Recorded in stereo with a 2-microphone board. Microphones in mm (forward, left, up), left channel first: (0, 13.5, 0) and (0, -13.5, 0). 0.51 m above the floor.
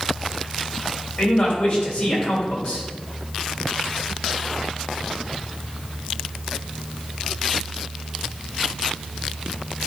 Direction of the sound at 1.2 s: 50° left (ahead or behind).